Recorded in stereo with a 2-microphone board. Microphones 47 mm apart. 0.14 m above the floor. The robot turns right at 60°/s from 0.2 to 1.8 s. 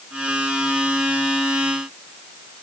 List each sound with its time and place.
Only background noise.